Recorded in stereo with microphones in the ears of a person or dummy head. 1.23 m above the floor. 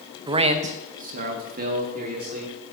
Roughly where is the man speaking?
Right.